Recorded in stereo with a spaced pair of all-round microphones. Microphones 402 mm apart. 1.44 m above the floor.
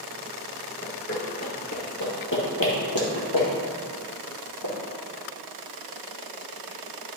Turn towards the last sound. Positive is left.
turn(degrees=70)  # may be behind; listen again after turning